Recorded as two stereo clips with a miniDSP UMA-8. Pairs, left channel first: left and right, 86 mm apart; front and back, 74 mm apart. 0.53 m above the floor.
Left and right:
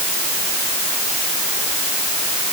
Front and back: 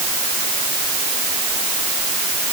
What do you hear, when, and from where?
Only background noise.